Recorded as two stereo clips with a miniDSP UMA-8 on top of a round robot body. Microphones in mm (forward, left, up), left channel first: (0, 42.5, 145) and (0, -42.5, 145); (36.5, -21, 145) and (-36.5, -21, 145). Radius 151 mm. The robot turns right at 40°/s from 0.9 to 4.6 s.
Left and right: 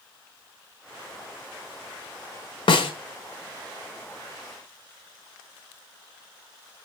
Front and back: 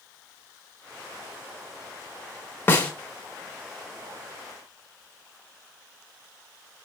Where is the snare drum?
65° left, 1.1 m; by 2.9 s 75° left, 1.1 m.